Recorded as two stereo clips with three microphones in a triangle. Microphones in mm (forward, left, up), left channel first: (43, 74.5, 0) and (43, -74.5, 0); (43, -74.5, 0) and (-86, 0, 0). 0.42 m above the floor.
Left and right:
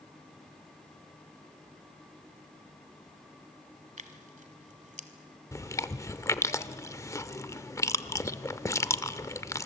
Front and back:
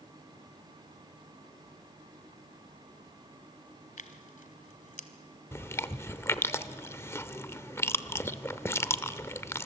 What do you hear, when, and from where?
4.0 s tearing paper: 60° right, 1.3 m
5.5 s chewing: 30° left, 0.6 m